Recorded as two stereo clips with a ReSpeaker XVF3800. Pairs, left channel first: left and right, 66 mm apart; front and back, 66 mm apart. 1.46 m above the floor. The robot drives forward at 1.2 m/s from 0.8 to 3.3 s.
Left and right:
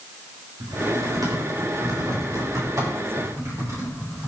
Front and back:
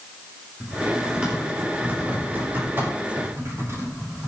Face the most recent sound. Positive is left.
turn(degrees=-130)